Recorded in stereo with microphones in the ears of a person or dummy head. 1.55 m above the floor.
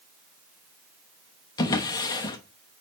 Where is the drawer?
15° left (ahead or behind), 1.0 m.